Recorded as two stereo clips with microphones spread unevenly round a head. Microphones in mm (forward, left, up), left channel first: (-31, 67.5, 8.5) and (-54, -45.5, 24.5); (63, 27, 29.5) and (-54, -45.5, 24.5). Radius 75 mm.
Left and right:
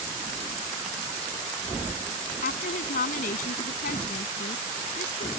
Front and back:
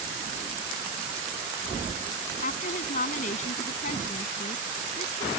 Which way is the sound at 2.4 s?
70° left.